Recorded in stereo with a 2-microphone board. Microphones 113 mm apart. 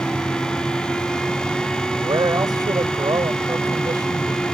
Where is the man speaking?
35° right (ahead or behind).